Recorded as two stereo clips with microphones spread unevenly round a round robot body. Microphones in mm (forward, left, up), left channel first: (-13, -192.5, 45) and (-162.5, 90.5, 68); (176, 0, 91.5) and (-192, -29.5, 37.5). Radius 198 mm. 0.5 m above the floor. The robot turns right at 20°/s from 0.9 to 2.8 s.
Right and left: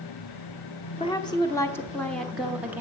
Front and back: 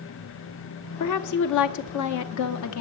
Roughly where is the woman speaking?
Ahead.